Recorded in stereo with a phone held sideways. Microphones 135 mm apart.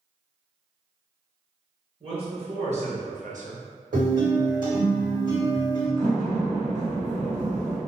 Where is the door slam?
65° right (ahead or behind), 1.8 m.